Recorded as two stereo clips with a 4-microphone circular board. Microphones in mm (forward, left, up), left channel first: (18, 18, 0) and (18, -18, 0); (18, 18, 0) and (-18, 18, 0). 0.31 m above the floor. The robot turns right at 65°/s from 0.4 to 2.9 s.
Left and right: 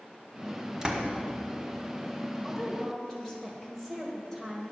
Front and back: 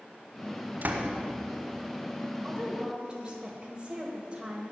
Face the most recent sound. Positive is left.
turn(degrees=160)